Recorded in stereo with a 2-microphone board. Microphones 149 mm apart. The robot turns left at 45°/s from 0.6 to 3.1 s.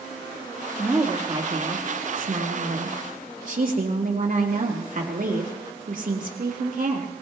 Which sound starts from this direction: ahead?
A woman speaking, at 0.8 s.